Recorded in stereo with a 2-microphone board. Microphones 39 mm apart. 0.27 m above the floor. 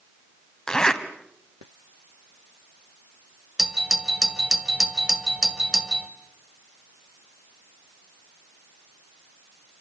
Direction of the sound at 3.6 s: 20° right (ahead or behind).